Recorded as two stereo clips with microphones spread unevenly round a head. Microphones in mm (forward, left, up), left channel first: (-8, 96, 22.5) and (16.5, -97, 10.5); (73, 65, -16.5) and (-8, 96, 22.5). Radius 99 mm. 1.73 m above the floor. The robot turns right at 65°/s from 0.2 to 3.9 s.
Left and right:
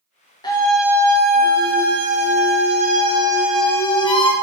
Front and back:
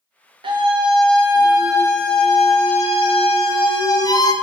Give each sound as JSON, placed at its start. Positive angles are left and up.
{"t": 0.4, "sound": "a scream", "azimuth_deg": 165, "distance_m": 1.7}